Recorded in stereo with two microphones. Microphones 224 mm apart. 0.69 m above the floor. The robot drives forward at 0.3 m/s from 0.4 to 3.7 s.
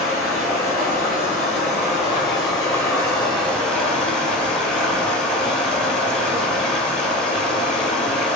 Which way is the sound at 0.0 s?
Centre (ahead or behind).